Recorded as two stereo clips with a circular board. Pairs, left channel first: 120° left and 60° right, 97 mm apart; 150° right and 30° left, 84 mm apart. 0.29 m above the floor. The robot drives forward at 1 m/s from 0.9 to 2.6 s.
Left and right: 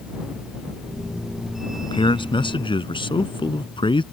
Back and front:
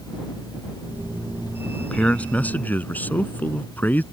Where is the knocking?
No knocking in this recording.